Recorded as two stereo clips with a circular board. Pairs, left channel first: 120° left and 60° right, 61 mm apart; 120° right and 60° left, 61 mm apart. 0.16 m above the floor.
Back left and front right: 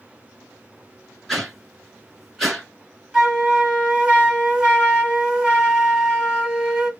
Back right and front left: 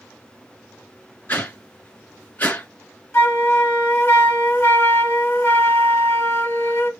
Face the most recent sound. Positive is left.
turn(degrees=-130)